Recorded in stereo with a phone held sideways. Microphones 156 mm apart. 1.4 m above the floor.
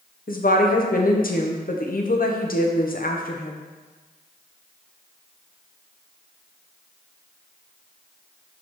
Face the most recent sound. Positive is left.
turn(degrees=60)  # may be behind; listen again after turning